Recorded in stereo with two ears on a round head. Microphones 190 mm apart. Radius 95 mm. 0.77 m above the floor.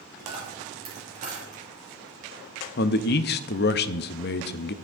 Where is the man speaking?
50° left (ahead or behind), 0.6 m.